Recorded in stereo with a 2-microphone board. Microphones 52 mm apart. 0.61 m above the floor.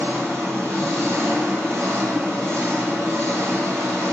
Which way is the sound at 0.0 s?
65° right (ahead or behind).